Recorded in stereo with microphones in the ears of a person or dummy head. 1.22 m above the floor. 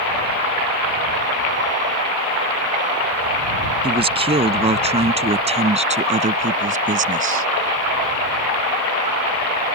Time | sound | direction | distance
3.8 | a man speaking | 30° right (ahead or behind) | ?